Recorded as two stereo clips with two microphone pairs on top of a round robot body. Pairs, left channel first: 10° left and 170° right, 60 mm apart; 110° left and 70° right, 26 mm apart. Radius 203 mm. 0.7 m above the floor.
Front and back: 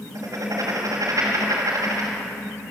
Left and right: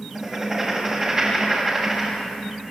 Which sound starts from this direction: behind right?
Writing, at 0.1 s.